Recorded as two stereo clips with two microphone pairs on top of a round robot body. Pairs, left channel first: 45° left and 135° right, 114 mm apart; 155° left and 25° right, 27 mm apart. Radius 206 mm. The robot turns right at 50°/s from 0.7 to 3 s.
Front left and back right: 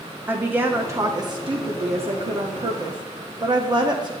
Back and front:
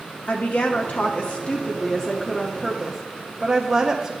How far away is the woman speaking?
About 1.3 m.